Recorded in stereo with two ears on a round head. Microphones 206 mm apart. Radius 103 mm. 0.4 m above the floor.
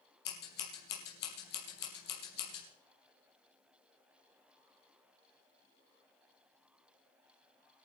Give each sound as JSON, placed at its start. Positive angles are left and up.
{"t": 0.2, "sound": "scissors", "side_deg": 45, "distance_m": 4.5}